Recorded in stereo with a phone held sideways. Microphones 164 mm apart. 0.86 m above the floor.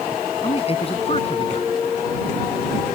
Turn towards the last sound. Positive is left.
turn(degrees=35)  # may be behind; listen again after turning